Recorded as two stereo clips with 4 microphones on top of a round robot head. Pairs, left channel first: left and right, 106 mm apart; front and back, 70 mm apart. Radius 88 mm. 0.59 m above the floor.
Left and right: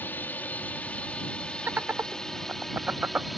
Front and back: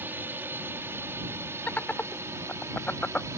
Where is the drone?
150° left; by 3.4 s straight behind.